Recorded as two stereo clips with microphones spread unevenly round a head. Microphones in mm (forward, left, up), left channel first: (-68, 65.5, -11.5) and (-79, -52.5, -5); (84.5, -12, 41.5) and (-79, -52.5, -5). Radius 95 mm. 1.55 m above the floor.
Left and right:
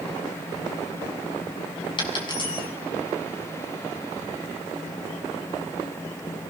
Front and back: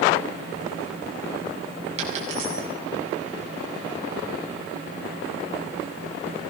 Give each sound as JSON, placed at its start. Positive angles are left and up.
{"t": 2.0, "sound": "a dropped coin", "azimuth_deg": 135, "distance_m": 7.5}